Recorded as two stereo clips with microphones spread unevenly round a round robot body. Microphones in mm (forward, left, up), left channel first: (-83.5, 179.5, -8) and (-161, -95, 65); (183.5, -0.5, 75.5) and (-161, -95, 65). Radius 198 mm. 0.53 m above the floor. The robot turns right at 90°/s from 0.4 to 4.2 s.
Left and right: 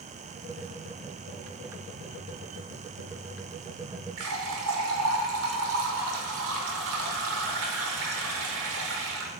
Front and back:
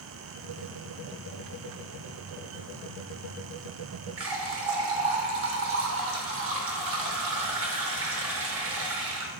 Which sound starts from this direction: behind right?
A running tap, at 4.2 s.